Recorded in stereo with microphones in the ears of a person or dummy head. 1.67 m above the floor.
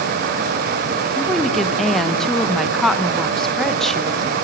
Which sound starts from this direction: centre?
A woman speaking, at 1.1 s.